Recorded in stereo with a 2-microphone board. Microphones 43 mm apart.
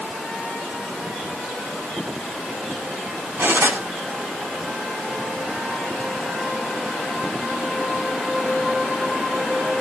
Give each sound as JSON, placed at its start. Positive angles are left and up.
{"t": 3.4, "sound": "cutlery clinking", "side_deg": -65, "distance_m": 8.5}